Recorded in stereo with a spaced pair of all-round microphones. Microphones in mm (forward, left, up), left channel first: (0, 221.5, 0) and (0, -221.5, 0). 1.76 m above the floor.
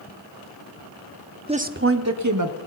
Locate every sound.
1.5 s a woman speaking: 10° right (ahead or behind), 0.8 m; by 2.6 s 40° right (ahead or behind), 1.6 m